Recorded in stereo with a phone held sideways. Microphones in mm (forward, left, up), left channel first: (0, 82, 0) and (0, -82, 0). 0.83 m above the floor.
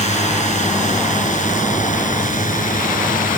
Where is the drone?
45° left (ahead or behind); by 3.4 s 55° left (ahead or behind).